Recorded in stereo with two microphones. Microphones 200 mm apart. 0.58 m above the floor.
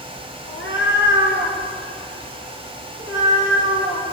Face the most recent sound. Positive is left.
turn(degrees=80)